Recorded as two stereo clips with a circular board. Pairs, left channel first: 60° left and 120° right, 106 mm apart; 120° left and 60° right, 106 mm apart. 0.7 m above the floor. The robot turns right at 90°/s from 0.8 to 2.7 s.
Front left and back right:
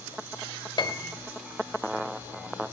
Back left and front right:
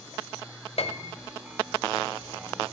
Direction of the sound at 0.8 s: 105° left.